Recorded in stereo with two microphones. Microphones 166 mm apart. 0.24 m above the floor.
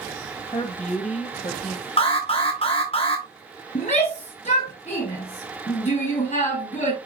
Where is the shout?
45° left (ahead or behind), 3.5 m.